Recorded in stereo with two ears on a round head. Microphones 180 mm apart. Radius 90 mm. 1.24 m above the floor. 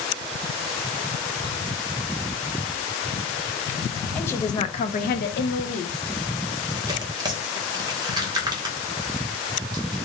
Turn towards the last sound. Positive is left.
turn(degrees=-20)  # may be behind; listen again after turning